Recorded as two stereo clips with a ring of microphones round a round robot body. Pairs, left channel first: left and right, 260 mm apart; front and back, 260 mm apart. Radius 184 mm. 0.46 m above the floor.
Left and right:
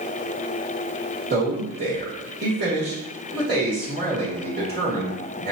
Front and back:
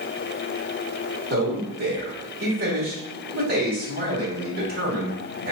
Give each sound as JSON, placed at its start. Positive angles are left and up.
{"t": 1.3, "sound": "a man speaking", "azimuth_deg": -135, "distance_m": 1.5}